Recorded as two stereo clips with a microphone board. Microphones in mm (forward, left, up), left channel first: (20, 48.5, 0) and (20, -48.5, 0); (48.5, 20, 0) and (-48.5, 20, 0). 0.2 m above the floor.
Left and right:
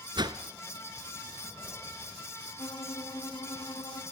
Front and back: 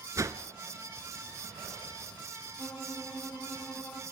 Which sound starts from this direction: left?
A violin, at 2.6 s.